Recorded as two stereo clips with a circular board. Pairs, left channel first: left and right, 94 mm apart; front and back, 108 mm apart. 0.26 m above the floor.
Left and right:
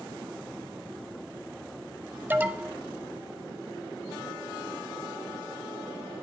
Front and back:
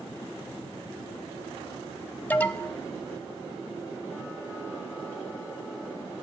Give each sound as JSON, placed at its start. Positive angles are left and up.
{"t": 2.3, "sound": "an alarm", "azimuth_deg": -50, "distance_m": 0.7}